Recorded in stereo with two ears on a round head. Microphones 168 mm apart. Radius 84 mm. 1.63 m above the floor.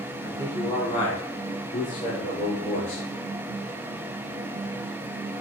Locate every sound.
0.2 s a man speaking: 20° left (ahead or behind), 4.5 m; by 3.1 s 35° left (ahead or behind), 6.5 m